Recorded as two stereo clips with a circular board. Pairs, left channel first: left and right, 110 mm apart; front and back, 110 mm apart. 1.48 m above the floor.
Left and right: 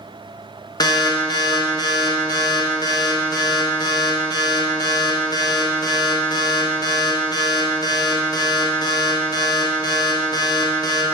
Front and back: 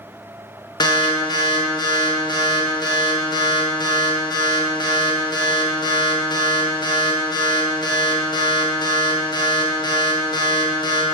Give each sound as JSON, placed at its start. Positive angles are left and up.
{"t": 0.8, "sound": "an alarm", "azimuth_deg": 40, "distance_m": 1.0}